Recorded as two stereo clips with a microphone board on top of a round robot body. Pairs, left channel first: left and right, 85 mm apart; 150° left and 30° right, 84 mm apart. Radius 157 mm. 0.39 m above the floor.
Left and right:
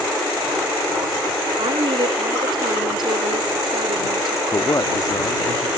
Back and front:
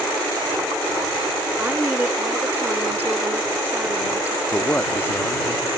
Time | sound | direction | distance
1.6 | a woman speaking | 100° right | ?
4.5 | a man speaking | 95° left | ?